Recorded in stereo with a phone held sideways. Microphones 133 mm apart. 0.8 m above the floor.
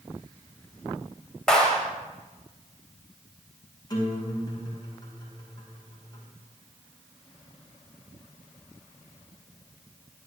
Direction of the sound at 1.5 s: 5° left (ahead or behind).